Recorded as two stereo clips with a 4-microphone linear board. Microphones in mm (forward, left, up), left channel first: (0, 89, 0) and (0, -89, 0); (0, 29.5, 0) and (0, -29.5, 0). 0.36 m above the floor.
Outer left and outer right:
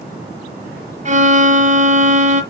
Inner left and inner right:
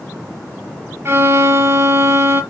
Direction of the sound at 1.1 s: 45° right (ahead or behind).